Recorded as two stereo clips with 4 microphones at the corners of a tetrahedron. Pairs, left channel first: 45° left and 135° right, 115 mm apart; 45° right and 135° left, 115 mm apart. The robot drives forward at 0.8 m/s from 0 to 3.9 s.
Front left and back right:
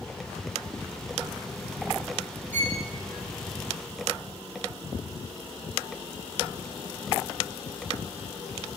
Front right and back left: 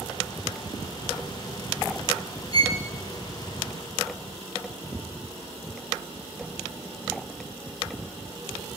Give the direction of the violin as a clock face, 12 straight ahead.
8 o'clock.